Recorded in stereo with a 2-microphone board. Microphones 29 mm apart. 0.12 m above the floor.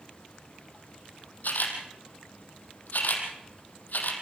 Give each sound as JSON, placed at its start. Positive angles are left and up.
{"t": 1.4, "sound": "a camera shutter", "side_deg": 75, "distance_m": 4.0}